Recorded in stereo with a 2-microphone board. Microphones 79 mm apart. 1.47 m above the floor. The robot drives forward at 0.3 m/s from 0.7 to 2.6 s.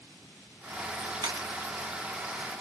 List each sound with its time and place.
1.2 s a camera shutter: 65° right (ahead or behind), 0.8 m; by 1.5 s 70° right (ahead or behind), 0.7 m